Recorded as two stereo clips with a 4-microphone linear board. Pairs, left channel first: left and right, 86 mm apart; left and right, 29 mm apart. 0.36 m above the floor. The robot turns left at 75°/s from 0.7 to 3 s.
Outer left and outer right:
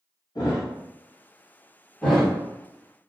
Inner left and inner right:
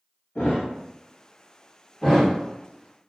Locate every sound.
0.3 s a thud: 65° left (ahead or behind), 1.0 m
2.0 s a thud: 10° left (ahead or behind), 1.1 m; by 2.3 s 10° right (ahead or behind), 1.1 m